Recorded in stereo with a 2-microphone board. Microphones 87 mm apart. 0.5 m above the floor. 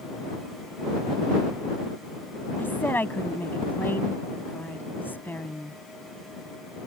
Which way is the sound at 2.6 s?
25° left (ahead or behind).